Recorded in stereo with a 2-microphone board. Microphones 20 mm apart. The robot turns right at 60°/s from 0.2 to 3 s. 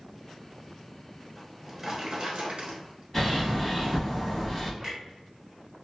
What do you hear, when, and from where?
1.4 s a drawer: 170° right, 1.1 m; by 3.0 s 75° right, 1.1 m
3.1 s a bird: 15° left (ahead or behind), 1.4 m
4.8 s a clunk: 20° right (ahead or behind), 1.1 m